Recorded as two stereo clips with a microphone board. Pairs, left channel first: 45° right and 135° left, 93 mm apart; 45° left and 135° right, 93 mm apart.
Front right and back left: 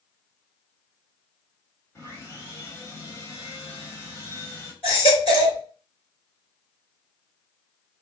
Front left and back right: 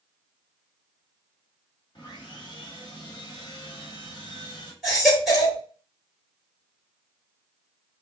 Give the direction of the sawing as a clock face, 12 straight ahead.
12 o'clock.